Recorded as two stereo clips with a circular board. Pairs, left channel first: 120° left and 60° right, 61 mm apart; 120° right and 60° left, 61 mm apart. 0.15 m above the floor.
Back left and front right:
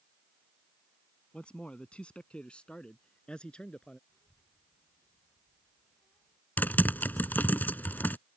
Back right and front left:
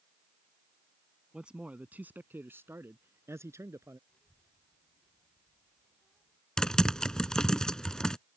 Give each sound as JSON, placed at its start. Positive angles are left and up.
{"t": 1.3, "sound": "a man speaking", "azimuth_deg": 100}
{"t": 4.1, "sound": "a child speaking", "azimuth_deg": 170}
{"t": 6.6, "sound": "typing on a keyboard", "azimuth_deg": 165}